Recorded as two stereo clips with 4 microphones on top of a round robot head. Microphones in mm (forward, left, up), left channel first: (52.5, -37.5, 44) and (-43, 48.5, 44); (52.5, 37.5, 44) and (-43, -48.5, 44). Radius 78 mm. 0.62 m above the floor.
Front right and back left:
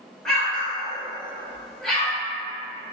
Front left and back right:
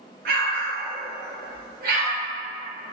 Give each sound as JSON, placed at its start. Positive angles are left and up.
{"t": 0.2, "sound": "an explosion", "azimuth_deg": -125, "distance_m": 0.9}